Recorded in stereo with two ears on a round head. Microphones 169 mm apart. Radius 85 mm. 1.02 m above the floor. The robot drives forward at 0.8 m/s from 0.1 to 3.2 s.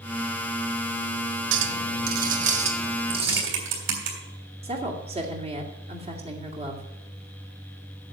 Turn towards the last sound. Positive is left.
turn(degrees=-35)  # may be behind; listen again after turning